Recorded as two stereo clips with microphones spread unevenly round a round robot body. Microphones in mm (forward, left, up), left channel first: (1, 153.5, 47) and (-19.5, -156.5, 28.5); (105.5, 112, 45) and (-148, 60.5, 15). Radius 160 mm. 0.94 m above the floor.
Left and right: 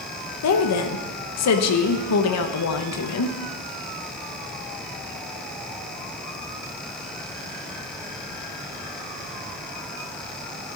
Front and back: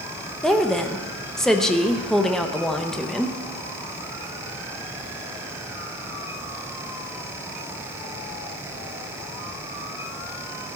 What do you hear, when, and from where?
0.4 s a woman speaking: 105° left, 1.1 m